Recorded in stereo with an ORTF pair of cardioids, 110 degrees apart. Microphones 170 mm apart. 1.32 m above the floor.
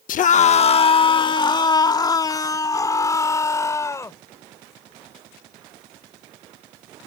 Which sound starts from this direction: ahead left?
A scream, at 0.1 s.